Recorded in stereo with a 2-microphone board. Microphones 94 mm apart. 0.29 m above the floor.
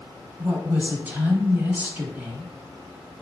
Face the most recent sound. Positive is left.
turn(degrees=-20)  # may be behind; listen again after turning